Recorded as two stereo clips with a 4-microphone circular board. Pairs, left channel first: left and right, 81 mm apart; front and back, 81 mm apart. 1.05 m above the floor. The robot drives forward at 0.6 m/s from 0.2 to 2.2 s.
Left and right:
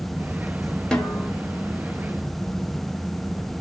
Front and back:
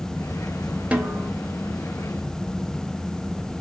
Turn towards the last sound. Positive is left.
turn(degrees=175)